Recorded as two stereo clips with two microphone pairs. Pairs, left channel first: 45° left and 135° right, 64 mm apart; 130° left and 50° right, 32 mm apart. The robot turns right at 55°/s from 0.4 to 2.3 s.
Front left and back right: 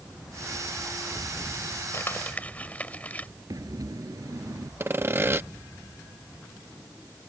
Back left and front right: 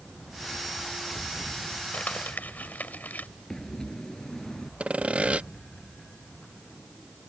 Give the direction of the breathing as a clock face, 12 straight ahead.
5 o'clock.